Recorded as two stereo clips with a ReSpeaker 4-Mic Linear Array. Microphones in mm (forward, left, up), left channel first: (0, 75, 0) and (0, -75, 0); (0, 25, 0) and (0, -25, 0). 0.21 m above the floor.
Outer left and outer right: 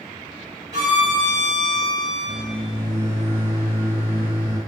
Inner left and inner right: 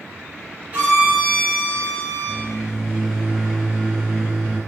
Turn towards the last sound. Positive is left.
turn(degrees=-15)  # may be behind; listen again after turning